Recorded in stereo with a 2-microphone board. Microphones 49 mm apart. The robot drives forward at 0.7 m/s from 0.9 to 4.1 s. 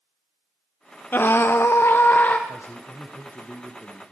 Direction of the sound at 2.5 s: 60° left (ahead or behind).